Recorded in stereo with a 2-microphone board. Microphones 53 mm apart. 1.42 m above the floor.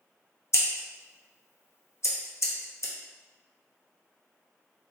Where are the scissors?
60° left (ahead or behind), 0.6 m.